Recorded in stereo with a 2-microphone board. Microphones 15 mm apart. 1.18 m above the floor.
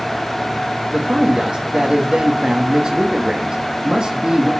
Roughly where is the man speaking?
Right.